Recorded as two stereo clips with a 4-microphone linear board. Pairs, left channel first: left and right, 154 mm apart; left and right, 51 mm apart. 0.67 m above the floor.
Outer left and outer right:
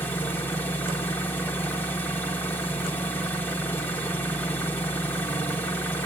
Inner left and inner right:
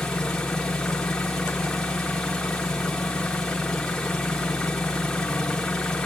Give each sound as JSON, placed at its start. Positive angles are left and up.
{"t": 0.0, "sound": "an engine running", "side_deg": 15, "distance_m": 1.0}